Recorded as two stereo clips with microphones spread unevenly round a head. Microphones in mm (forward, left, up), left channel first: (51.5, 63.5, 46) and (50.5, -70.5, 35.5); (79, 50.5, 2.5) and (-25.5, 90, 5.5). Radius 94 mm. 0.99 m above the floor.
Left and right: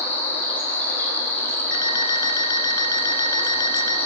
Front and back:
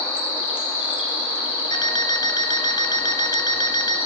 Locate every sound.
0.0 s an insect: 15° left, 6 m
1.7 s an alarm clock: 30° left, 1.7 m